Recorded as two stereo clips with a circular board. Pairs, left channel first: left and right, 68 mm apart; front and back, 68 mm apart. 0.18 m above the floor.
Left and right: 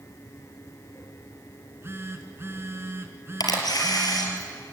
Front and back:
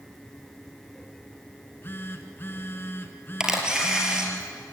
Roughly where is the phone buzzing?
Ahead right.